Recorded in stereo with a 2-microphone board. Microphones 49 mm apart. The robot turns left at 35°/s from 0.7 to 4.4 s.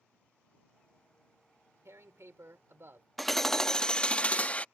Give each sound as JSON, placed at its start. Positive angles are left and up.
{"t": 1.9, "sound": "tearing paper", "azimuth_deg": -80}
{"t": 3.2, "sound": "hammering", "azimuth_deg": 175}